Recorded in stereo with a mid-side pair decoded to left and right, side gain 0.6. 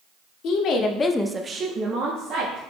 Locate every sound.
0.4 s a woman speaking: 65° left, 1.1 m; by 2.6 s 70° right, 1.7 m